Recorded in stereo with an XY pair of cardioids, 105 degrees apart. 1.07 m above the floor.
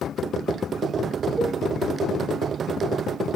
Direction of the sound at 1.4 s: Straight ahead.